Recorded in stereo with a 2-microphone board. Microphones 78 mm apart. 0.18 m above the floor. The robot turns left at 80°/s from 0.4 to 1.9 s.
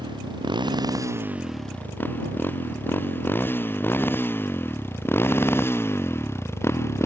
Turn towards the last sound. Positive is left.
turn(degrees=35)  # may be behind; listen again after turning